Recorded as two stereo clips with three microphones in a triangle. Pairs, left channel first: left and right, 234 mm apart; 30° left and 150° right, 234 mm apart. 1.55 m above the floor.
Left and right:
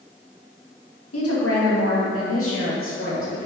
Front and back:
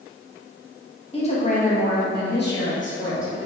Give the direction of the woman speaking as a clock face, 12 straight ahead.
9 o'clock.